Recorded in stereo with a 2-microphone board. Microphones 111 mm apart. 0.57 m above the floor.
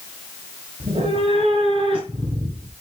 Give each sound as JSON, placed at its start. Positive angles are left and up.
{"t": 0.8, "sound": "a cat meowing", "side_deg": -70, "distance_m": 3.5}